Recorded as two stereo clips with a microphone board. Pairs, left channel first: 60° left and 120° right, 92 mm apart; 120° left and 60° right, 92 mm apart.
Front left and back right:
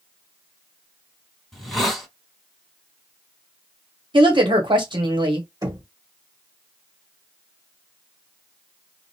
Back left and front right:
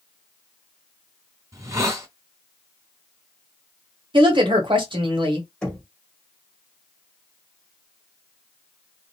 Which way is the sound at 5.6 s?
160° right.